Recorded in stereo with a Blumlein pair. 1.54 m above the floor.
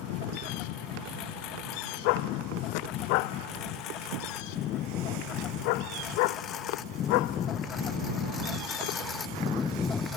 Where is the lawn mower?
40° left; by 10.2 s 15° left.